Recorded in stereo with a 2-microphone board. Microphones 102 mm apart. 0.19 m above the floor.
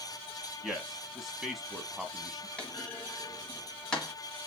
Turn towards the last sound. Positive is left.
turn(degrees=10)  # may be behind; listen again after turning